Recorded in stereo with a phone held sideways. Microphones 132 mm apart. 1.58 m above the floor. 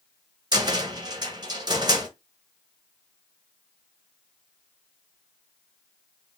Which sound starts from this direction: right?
A cupboard door, at 0.5 s.